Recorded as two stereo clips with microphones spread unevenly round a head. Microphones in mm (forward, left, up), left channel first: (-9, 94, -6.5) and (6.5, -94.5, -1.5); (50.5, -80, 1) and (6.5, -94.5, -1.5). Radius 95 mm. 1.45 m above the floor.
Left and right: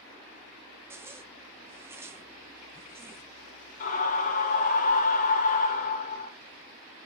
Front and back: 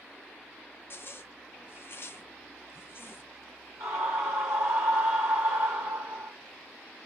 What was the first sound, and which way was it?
A zipper, 10° right.